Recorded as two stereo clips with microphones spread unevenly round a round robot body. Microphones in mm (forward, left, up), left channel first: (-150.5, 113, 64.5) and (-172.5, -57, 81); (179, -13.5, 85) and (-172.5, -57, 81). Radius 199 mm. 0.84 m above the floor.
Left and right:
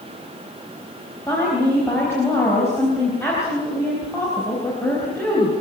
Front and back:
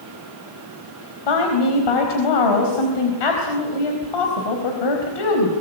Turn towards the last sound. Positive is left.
turn(degrees=0)